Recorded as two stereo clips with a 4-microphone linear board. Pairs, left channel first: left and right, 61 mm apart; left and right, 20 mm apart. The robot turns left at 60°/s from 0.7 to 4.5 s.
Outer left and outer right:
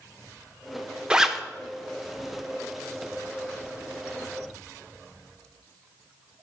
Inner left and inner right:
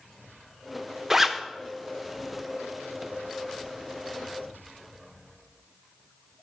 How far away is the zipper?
About 0.5 m.